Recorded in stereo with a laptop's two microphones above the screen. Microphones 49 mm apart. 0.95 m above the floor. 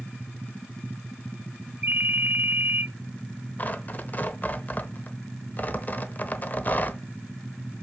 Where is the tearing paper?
40° left (ahead or behind), 0.8 m.